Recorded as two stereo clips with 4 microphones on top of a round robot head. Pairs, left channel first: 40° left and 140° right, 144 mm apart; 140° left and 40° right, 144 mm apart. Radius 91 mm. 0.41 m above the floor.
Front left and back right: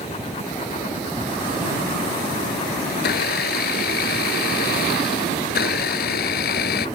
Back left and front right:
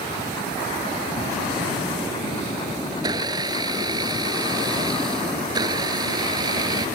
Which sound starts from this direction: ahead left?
A blender, at 2.9 s.